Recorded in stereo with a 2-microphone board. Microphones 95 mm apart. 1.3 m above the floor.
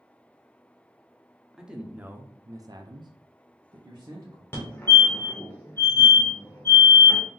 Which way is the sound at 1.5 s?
5° right (ahead or behind).